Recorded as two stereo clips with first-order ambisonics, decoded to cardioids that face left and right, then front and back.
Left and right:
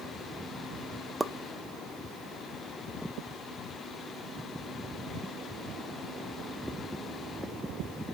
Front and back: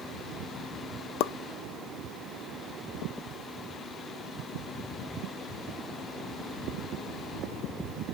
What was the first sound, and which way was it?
A pop, 10° right.